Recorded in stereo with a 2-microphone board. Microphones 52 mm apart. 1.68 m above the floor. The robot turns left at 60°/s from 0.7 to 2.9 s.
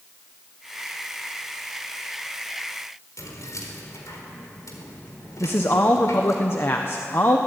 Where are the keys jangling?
80° left, 4 m.